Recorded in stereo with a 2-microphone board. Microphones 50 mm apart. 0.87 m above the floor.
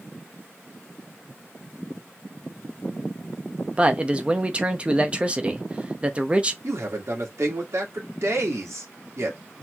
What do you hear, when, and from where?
3.8 s a man speaking: 20° right (ahead or behind), 0.8 m
6.6 s a man speaking: 70° right (ahead or behind), 2 m